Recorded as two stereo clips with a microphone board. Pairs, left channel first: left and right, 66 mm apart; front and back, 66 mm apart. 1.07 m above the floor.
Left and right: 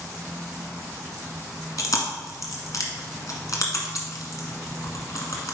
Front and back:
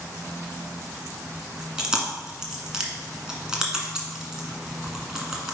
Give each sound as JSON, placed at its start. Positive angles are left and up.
{"t": 1.8, "sound": "chewing", "azimuth_deg": 100, "distance_m": 1.7}